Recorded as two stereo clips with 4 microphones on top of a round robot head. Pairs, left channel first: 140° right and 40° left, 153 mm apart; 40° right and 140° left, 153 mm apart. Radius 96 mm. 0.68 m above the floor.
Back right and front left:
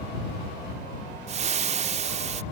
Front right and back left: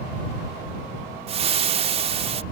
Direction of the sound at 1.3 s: 90° left.